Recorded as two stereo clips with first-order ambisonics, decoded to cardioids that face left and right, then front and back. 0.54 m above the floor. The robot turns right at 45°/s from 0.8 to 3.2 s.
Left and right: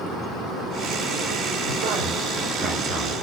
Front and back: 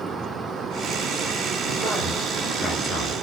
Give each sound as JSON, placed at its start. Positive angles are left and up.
{"t": 1.6, "sound": "a man speaking", "azimuth_deg": -105, "distance_m": 2.0}